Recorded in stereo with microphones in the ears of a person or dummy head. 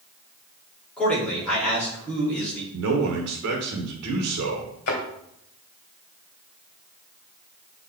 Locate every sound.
1.0 s a man speaking: 10° left (ahead or behind), 4 m
2.7 s a man speaking: 85° right, 1.3 m
4.9 s a thud: 50° left (ahead or behind), 2.5 m